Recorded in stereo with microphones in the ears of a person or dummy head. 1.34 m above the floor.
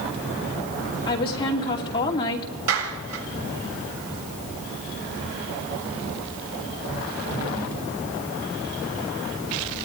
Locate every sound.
1.1 s a woman speaking: 30° left (ahead or behind), 2.5 m
2.7 s a clap: 80° right, 7.5 m